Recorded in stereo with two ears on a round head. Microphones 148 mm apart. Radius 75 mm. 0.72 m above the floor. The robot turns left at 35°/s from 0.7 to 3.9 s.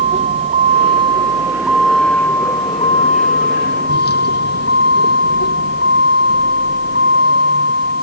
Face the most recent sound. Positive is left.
turn(degrees=110)